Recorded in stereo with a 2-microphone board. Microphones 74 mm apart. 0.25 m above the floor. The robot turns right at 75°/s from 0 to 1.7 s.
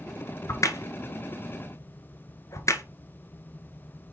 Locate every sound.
0.5 s a crack: 40° left (ahead or behind), 0.9 m; by 2.8 s 50° left (ahead or behind), 0.9 m